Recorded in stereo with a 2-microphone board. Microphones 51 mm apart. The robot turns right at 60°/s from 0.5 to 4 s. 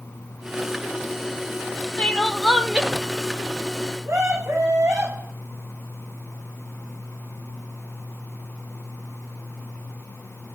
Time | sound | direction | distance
2.0 | crying | 150° left | 0.8 m
4.0 | a scream | 80° right | 9.5 m